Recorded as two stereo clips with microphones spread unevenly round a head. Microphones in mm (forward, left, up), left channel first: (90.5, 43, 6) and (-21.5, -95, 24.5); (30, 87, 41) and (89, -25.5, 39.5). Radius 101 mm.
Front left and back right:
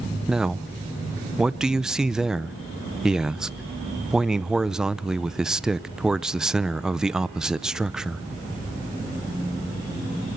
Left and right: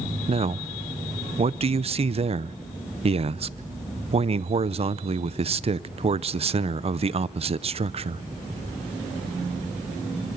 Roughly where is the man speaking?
Ahead right.